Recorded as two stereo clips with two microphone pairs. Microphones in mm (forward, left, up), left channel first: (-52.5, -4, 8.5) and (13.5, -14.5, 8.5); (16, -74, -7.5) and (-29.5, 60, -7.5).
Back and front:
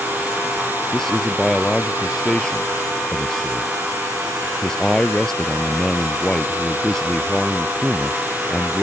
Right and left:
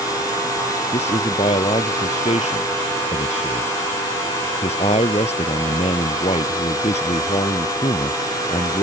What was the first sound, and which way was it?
A man speaking, 105° right.